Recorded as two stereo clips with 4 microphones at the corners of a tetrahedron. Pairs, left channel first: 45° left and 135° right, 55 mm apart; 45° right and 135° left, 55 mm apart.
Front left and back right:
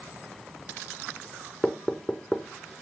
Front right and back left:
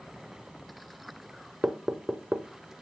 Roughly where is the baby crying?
No baby crying in this recording.